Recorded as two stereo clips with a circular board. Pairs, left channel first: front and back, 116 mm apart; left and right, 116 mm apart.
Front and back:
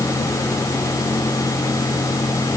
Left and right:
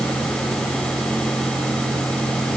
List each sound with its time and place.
Only background noise.